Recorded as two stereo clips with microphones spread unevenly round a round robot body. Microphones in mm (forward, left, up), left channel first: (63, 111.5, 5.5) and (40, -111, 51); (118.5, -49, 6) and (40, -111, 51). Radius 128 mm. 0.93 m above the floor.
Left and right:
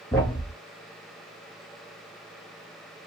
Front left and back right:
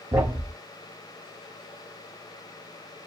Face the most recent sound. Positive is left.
turn(degrees=175)